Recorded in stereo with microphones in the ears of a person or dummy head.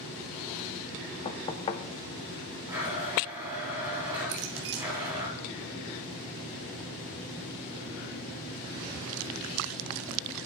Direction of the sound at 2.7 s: 15° right (ahead or behind).